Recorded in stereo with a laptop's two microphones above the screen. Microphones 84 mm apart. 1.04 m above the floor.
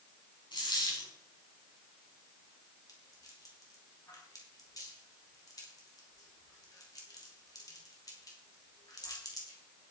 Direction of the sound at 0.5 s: 65° left (ahead or behind).